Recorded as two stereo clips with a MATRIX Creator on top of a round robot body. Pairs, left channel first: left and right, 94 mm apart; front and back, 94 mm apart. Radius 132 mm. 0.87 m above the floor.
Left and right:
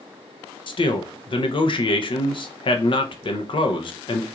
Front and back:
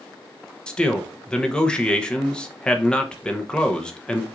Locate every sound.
0.7 s a man speaking: 80° left, 0.9 m